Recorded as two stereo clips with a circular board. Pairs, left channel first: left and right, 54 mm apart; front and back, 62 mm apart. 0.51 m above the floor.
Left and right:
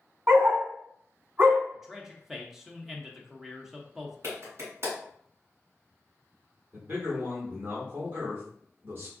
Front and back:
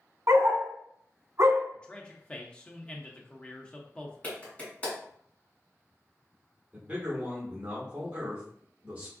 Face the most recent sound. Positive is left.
turn(degrees=-125)